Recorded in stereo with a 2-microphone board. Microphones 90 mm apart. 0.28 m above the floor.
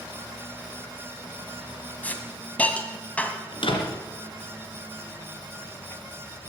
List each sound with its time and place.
2.0 s a hiss: 15° left (ahead or behind), 1.4 m
3.5 s a door slam: 65° left (ahead or behind), 2.5 m